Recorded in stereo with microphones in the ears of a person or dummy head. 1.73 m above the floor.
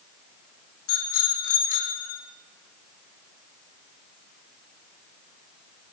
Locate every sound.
0.9 s a bicycle bell: 75° left (ahead or behind), 4 m; by 2.2 s 65° left (ahead or behind), 3 m